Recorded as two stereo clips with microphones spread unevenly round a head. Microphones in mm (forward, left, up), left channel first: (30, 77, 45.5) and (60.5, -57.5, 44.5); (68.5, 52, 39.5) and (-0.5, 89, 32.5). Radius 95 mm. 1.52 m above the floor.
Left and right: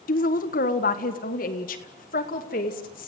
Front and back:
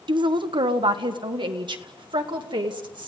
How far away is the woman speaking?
About 1.2 m.